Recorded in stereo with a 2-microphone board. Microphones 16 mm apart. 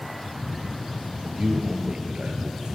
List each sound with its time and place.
1.2 s a man speaking: 70° right (ahead or behind), 4.5 m